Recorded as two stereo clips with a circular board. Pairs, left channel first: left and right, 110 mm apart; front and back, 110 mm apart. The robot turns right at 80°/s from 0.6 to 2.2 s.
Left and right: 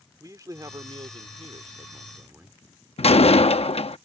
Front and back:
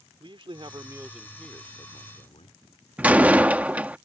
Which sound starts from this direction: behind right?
A man speaking, at 0.2 s.